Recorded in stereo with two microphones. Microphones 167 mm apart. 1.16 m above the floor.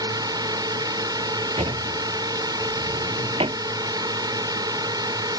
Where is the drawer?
35° right (ahead or behind).